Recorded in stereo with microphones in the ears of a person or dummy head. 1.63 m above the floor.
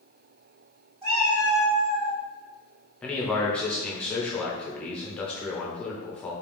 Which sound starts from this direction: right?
A cat meowing, at 1.0 s.